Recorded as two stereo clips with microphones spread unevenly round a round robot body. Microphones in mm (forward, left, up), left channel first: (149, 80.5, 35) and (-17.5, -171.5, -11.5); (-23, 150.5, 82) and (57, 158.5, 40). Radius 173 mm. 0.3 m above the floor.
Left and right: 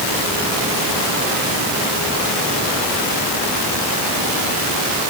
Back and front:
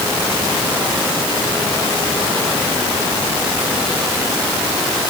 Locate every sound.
Only background noise.